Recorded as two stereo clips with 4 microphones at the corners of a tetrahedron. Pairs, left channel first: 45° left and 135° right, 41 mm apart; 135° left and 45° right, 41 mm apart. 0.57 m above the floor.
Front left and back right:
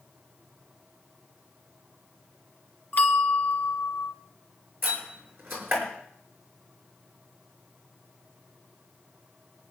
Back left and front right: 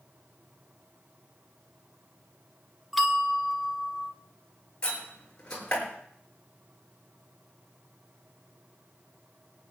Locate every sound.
2.9 s a bell: 40° left, 1.2 m
4.8 s a door slam: 155° right, 5.5 m